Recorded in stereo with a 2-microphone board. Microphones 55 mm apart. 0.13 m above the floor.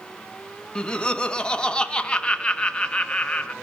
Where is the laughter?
20° left (ahead or behind), 1.2 m.